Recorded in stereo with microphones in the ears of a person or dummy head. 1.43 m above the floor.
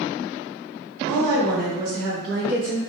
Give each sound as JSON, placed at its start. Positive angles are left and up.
{"t": 1.1, "sound": "a woman speaking", "side_deg": -75, "distance_m": 1.4}